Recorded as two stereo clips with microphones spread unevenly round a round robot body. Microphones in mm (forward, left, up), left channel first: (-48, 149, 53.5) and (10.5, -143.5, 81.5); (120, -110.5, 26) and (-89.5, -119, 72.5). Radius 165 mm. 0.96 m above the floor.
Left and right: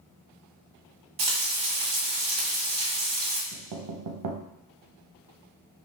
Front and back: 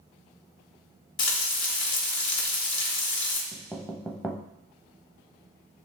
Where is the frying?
20° right, 1.0 m.